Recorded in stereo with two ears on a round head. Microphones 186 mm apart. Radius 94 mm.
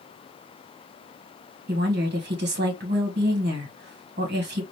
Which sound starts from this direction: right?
A woman speaking, at 1.7 s.